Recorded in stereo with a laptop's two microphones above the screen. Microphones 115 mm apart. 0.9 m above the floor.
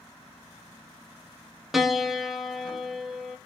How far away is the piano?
About 1.6 m.